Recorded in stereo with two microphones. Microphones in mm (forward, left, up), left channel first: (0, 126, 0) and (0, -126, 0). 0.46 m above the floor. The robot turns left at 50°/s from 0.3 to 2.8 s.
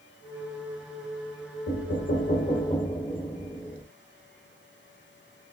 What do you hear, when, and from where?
1.7 s knocking: 80° left, 1.2 m; by 3.9 s 25° left, 1.2 m